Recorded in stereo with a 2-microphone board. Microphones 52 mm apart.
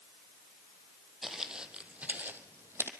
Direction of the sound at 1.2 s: 5° right (ahead or behind).